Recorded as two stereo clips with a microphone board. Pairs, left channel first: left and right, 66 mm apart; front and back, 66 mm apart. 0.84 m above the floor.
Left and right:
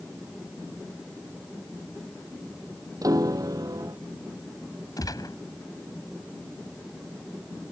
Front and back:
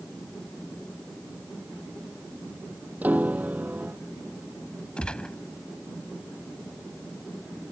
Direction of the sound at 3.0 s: 110° right.